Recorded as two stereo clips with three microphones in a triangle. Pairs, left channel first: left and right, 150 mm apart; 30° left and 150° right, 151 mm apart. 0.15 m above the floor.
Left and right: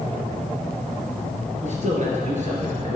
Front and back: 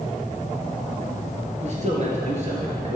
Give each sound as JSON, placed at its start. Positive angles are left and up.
{"t": 1.6, "sound": "a man speaking", "azimuth_deg": -120, "distance_m": 2.5}